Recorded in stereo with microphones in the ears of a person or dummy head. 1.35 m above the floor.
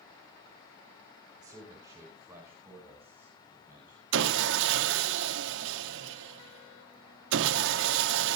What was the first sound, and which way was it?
A man speaking, 20° right (ahead or behind).